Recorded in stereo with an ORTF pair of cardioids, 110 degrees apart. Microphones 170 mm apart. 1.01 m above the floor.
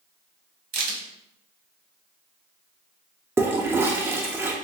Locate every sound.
0.7 s a crack: 60° right, 1.4 m
3.4 s a toilet flushing: 15° right, 0.6 m